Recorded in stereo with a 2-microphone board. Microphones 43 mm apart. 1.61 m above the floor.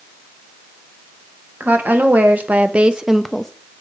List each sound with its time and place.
1.6 s a woman speaking: 50° right (ahead or behind), 1.4 m; by 3.5 s 15° left (ahead or behind), 0.5 m